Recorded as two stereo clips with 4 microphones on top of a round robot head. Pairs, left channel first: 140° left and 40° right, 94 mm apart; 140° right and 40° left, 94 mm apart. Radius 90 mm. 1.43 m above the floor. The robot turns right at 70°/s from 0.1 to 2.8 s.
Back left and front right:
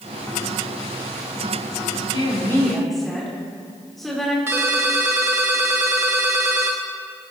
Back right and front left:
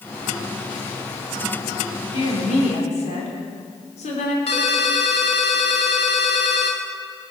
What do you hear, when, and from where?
2.1 s a woman speaking: straight behind, 4 m; by 4.4 s 135° right, 4 m
4.5 s a ringtone: 105° right, 1.1 m